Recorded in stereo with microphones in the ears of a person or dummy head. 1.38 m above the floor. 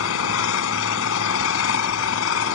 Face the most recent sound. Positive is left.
turn(degrees=70)  # may be behind; listen again after turning